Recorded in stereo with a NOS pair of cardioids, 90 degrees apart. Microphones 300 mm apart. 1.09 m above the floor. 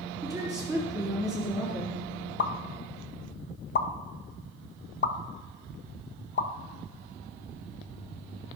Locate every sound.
0.2 s a woman speaking: 5° right, 2.5 m
2.4 s a pop: 35° left, 0.7 m